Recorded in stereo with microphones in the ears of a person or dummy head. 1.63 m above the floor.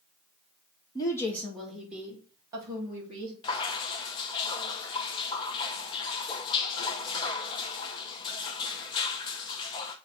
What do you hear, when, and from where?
0.9 s a woman speaking: 20° left (ahead or behind), 2 m; by 3.3 s 30° right (ahead or behind), 4 m
3.4 s dripping: 25° left (ahead or behind), 0.8 m